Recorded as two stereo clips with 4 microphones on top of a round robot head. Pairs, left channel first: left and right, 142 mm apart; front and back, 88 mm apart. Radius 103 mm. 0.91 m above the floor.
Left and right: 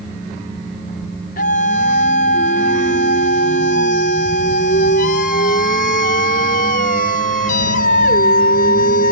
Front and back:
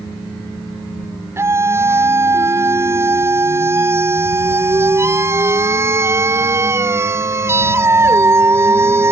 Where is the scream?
120° left.